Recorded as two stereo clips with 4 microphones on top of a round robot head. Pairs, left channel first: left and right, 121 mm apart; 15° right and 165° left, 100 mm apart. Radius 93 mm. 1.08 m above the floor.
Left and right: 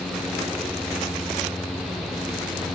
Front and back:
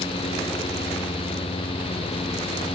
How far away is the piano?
No piano in this recording.